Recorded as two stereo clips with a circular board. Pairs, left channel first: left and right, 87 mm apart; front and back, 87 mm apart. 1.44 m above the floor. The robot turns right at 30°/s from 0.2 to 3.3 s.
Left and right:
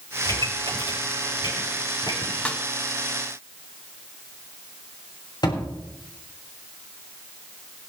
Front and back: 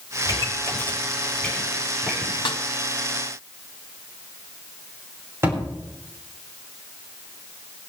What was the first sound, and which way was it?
A pop, 45° left.